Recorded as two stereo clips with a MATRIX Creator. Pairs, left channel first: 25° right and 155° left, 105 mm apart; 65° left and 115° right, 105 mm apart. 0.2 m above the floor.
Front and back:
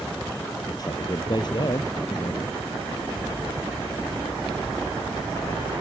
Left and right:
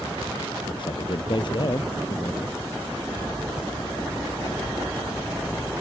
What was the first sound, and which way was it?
A man speaking, 30° left.